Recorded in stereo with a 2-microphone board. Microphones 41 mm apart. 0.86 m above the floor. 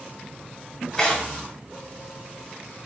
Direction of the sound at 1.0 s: 10° left (ahead or behind).